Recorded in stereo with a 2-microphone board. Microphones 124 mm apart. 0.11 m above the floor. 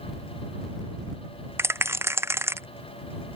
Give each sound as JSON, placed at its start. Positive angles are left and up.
{"t": 1.6, "sound": "a rattle", "side_deg": -20}